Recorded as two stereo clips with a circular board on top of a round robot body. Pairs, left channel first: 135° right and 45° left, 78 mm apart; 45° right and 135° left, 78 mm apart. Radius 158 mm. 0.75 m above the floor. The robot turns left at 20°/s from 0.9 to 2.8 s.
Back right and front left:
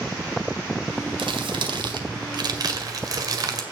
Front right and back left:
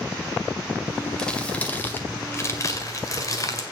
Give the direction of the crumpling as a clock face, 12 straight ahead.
11 o'clock.